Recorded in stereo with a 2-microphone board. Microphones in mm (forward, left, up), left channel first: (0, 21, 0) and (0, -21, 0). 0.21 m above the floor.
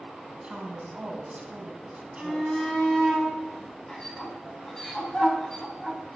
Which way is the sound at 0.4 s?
30° right (ahead or behind).